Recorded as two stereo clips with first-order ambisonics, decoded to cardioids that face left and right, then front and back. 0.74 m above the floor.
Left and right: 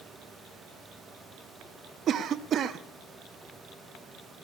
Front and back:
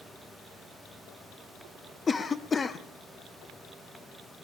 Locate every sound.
2.1 s a cough: 65° right, 0.6 m